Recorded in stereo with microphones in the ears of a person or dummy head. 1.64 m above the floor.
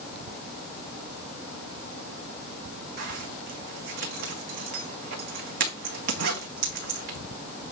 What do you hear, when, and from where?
3.0 s a zipper: 55° right (ahead or behind), 1.5 m